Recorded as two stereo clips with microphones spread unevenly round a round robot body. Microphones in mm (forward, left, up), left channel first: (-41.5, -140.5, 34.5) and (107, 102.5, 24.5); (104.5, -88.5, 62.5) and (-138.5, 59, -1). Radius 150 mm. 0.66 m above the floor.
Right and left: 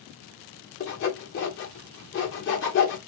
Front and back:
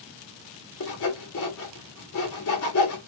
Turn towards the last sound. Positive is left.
turn(degrees=-75)